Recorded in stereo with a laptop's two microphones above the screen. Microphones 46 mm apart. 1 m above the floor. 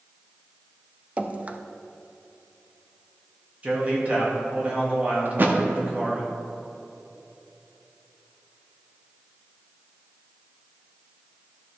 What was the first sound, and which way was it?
Dripping, 30° right (ahead or behind).